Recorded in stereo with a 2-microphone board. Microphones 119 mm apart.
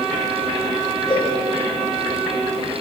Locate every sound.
1.1 s a cowbell: 35° left (ahead or behind), 5 m